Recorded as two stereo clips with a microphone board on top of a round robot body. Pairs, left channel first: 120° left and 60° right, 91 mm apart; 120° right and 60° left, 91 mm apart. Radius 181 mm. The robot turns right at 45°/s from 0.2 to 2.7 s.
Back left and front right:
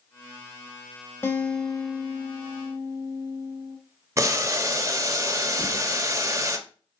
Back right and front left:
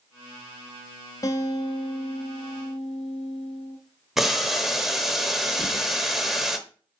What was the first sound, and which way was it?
A guitar, 175° right.